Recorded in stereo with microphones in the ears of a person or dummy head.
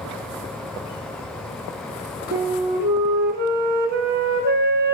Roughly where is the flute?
Right.